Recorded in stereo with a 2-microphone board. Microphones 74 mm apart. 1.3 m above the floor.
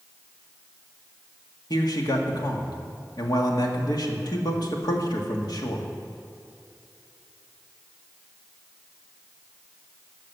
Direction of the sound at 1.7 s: 65° left (ahead or behind).